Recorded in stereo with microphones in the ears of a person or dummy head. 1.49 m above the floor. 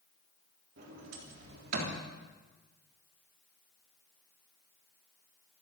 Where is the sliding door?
55° right (ahead or behind), 3.5 m.